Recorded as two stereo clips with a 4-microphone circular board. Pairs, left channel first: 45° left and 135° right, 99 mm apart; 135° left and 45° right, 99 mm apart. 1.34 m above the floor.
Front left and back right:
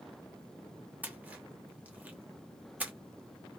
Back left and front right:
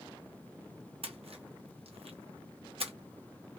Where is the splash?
60° right, 0.7 m.